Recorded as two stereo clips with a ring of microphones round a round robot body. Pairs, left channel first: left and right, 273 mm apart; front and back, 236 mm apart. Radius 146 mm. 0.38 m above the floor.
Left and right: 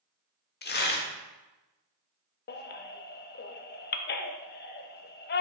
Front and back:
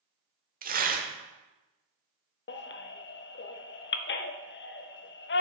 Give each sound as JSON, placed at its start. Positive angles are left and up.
{"t": 0.6, "sound": "tearing paper", "azimuth_deg": 135, "distance_m": 0.9}
{"t": 2.5, "sound": "a baby crying", "azimuth_deg": 40, "distance_m": 0.6}